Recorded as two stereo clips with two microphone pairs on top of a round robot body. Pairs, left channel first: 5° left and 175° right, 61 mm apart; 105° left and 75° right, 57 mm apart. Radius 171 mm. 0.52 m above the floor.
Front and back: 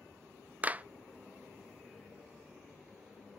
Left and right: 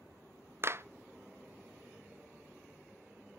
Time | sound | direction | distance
0.6 | a clap | 105° right | 0.6 m